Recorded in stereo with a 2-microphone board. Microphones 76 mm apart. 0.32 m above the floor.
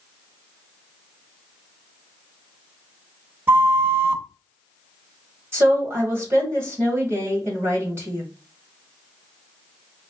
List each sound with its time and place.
3.5 s a flute: 30° right (ahead or behind), 0.6 m
5.5 s a woman speaking: 35° right (ahead or behind), 2 m